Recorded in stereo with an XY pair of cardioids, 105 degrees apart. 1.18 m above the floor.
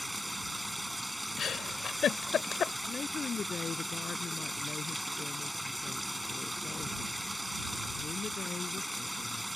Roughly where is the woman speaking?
Ahead left.